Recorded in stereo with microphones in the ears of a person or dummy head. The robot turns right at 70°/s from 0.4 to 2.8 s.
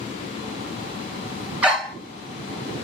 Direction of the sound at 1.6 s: 10° right (ahead or behind).